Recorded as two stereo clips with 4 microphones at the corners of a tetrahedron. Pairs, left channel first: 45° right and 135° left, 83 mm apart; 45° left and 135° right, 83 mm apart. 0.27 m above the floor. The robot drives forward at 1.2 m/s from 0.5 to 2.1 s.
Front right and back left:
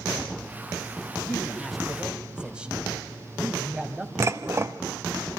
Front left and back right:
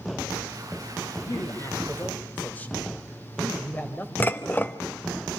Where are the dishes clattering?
100° left, 0.8 m.